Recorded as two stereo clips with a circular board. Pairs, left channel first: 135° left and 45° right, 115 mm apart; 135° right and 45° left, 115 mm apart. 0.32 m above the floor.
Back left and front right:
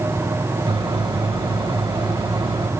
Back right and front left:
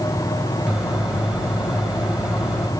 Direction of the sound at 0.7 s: 40° right.